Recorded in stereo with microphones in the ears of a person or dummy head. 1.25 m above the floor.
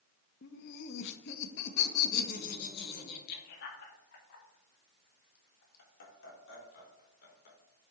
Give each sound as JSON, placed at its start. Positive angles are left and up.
{"t": 0.4, "sound": "laughter", "side_deg": 60, "distance_m": 0.8}